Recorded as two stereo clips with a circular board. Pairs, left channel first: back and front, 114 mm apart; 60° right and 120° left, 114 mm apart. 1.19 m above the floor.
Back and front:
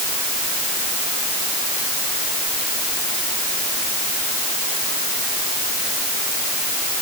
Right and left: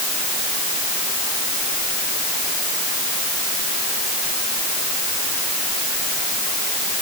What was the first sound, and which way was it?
Only background noise.